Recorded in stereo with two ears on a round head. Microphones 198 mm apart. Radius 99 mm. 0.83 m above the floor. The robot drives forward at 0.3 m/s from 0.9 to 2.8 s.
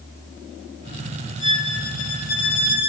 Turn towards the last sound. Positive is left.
turn(degrees=45)  # may be behind; listen again after turning